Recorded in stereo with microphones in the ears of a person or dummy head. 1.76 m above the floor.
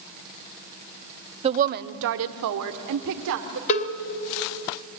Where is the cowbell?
40° left (ahead or behind), 1.4 m.